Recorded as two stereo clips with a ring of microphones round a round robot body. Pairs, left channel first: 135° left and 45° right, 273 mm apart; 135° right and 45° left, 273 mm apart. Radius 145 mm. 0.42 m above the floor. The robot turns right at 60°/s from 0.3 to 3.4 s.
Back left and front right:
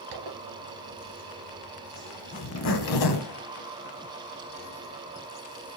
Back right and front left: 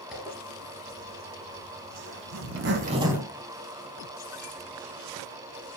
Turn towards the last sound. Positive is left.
turn(degrees=145)